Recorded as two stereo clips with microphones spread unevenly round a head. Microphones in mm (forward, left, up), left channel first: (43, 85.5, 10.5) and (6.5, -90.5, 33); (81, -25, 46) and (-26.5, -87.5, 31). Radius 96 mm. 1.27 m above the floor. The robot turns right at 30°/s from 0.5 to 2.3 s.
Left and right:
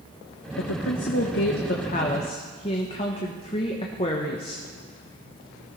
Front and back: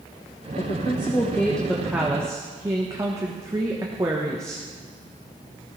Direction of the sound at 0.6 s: 85° left.